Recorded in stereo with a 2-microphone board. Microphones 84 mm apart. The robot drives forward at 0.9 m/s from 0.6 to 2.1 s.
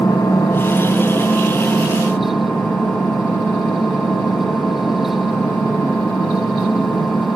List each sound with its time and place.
0.0 s an engine running: 40° left (ahead or behind), 1.4 m; by 7.4 s 20° left (ahead or behind), 2.5 m